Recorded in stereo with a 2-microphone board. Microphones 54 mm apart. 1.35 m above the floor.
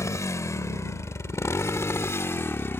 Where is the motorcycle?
65° left (ahead or behind); by 2.8 s 45° left (ahead or behind).